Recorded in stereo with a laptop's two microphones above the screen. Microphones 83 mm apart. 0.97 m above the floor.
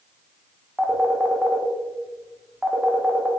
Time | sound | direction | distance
0.8 | a phone ringing | centre (ahead or behind) | 0.6 m